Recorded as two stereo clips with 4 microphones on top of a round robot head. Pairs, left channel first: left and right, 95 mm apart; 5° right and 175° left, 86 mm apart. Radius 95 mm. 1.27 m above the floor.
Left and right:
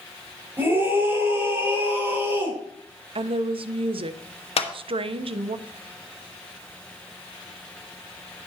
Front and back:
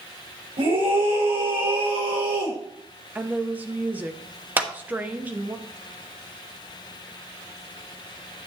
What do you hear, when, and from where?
0.6 s a scream: 160° right, 5 m
3.1 s a woman speaking: 110° right, 0.8 m
4.6 s a clap: 105° left, 1.7 m